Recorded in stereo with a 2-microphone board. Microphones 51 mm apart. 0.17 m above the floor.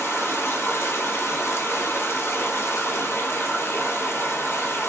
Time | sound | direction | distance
0.0 | running water | 55° left (ahead or behind) | 0.7 m